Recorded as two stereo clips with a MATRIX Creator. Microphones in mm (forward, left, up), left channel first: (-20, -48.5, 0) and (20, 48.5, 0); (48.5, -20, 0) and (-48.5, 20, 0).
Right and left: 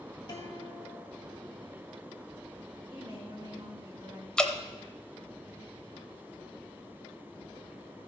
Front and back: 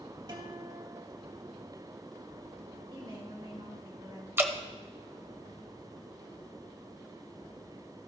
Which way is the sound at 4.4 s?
Straight behind.